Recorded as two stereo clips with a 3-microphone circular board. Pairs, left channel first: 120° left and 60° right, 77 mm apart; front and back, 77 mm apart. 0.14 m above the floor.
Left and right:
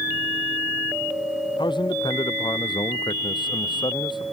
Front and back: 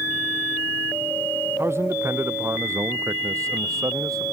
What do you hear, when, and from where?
1.6 s a man speaking: 125° left; by 4.2 s 140° left